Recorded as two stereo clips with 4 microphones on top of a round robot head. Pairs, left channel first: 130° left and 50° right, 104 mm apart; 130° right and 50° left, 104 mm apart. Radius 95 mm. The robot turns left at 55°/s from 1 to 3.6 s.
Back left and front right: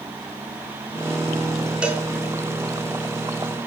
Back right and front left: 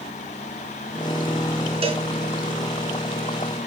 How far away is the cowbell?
About 3.5 m.